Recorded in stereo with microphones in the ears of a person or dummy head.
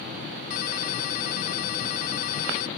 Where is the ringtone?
50° left (ahead or behind).